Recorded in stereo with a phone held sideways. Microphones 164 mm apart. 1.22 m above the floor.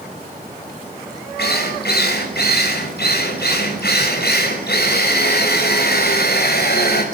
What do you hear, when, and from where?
1.4 s a drill: 80° left, 6.5 m